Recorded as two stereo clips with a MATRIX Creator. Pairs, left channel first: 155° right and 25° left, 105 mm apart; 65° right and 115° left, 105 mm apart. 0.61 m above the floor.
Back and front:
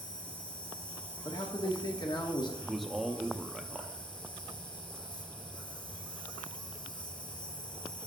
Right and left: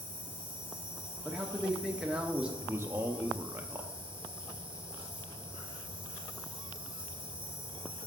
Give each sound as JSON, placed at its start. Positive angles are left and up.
{"t": 0.0, "sound": "an insect", "azimuth_deg": -170, "distance_m": 0.8}
{"t": 1.2, "sound": "a man speaking", "azimuth_deg": -170, "distance_m": 0.8}
{"t": 2.6, "sound": "a man speaking", "azimuth_deg": 115, "distance_m": 0.5}